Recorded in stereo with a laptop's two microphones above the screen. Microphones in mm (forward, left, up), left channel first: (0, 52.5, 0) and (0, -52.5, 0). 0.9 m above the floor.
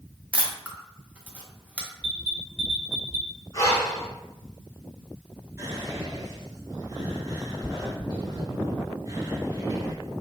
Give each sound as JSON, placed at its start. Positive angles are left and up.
{"t": 0.3, "sound": "a camera shutter", "side_deg": -10, "distance_m": 0.8}
{"t": 2.0, "sound": "an alarm", "side_deg": 5, "distance_m": 1.6}
{"t": 3.5, "sound": "breathing", "side_deg": 30, "distance_m": 0.8}
{"t": 5.6, "sound": "whispering", "side_deg": -35, "distance_m": 1.8}